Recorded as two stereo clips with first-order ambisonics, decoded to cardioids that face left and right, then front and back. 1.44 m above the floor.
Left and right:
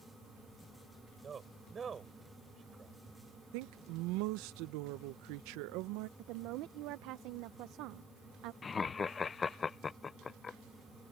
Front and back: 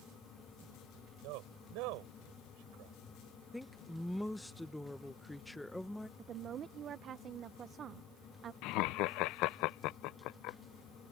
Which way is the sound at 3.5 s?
85° right.